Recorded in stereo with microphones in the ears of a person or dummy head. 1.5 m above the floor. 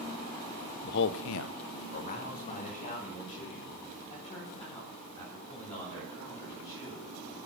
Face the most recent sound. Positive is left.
turn(degrees=40)  # may be behind; listen again after turning